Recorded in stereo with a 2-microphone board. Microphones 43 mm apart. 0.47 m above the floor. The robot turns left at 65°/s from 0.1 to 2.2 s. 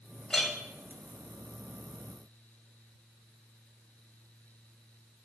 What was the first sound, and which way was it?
A clink, 20° left (ahead or behind).